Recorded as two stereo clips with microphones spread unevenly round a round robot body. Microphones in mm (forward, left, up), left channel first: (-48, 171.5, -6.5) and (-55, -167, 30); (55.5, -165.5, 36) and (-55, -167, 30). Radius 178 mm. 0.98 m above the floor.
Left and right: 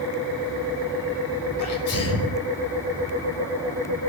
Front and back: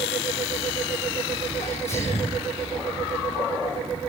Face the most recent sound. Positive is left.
turn(degrees=40)